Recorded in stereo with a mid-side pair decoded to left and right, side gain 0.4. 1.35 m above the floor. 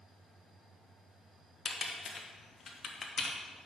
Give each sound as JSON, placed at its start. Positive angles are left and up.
{"t": 1.6, "sound": "typing on a keyboard", "azimuth_deg": 50, "distance_m": 1.4}